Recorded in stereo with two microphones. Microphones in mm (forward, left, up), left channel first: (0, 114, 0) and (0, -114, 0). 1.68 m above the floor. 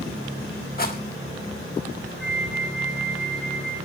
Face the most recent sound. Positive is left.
turn(degrees=0)  # may be behind; listen again after turning